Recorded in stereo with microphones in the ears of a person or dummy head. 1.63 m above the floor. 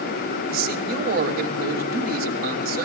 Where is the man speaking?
60° right (ahead or behind), 2.5 m.